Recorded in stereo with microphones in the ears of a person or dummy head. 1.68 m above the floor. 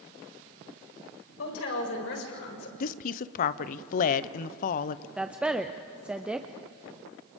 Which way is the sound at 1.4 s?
85° left.